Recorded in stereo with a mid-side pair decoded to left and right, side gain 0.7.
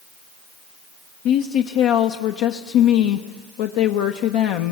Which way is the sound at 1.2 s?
70° left.